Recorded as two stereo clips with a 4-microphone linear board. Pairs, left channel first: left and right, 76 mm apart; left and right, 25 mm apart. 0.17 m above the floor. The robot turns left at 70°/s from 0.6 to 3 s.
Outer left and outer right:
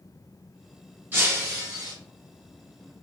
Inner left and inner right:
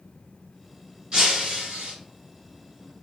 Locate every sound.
1.1 s breaking glass: 30° right, 1.4 m; by 1.9 s 90° right, 1.4 m